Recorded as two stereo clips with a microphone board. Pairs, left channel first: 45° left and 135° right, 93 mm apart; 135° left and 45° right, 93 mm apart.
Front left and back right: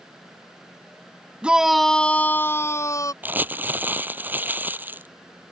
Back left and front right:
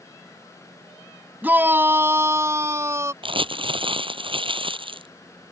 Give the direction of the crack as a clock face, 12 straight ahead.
I don't hear a crack.